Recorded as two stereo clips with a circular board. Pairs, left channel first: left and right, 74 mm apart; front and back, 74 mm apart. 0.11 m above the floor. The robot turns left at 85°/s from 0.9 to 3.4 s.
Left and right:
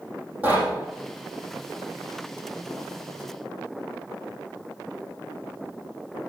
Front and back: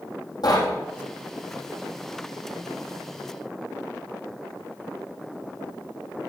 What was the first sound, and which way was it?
Knocking, 20° right.